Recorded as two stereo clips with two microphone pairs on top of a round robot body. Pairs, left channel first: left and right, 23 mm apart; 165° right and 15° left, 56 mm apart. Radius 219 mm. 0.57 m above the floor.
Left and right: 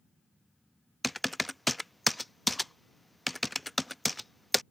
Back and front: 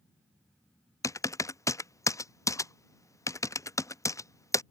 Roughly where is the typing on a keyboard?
Behind.